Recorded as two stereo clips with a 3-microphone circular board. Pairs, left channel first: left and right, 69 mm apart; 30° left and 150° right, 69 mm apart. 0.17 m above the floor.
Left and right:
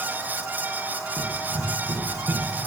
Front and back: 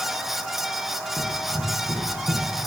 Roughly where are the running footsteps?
Right.